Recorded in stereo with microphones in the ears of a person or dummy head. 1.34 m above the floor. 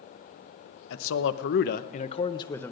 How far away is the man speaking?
About 0.9 m.